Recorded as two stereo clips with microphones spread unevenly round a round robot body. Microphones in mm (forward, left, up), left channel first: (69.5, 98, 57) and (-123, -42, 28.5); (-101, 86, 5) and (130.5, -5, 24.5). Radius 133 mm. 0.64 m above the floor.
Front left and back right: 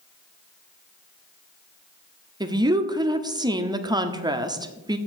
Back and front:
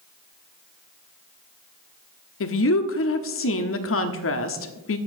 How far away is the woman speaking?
About 1.4 m.